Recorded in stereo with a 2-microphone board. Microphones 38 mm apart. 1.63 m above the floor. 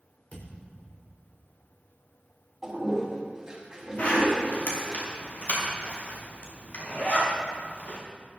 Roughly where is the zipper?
Left.